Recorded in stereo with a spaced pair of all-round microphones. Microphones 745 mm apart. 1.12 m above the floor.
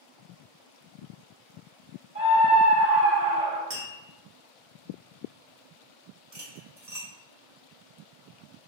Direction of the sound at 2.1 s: 15° right (ahead or behind).